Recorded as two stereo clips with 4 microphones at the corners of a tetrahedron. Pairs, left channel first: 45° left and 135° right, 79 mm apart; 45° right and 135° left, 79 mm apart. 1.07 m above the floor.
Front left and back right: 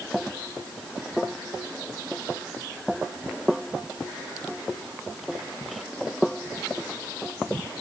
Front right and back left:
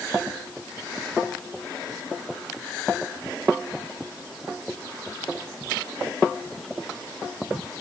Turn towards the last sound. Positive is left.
No sound to turn to.